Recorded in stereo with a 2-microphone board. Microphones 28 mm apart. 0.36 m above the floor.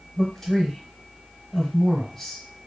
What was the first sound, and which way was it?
A man speaking, 10° left (ahead or behind).